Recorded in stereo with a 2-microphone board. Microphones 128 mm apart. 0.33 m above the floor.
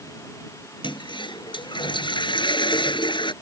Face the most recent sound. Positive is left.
turn(degrees=40)  # may be behind; listen again after turning